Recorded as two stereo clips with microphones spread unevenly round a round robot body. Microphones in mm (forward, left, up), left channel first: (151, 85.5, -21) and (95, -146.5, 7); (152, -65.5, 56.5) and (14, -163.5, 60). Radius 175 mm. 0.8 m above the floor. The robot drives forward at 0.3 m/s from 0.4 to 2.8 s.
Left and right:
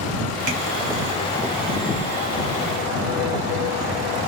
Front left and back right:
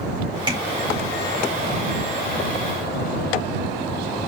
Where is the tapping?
80° right, 1.9 m.